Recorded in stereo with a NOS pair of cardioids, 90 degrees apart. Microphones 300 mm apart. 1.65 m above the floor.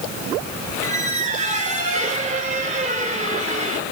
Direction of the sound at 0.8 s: 25° right.